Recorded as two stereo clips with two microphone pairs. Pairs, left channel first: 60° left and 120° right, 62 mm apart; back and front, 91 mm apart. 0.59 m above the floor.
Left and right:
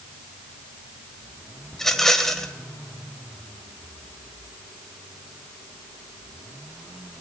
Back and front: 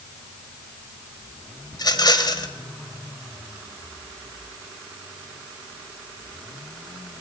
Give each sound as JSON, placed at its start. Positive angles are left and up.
{"t": 1.7, "sound": "a rattle", "azimuth_deg": 140, "distance_m": 2.5}